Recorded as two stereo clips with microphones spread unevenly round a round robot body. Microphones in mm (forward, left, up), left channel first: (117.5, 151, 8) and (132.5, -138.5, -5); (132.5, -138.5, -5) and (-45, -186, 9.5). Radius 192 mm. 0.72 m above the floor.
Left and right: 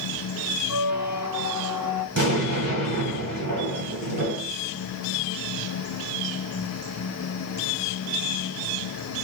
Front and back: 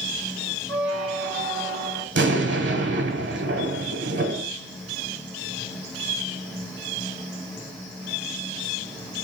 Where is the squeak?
165° right, 0.9 m.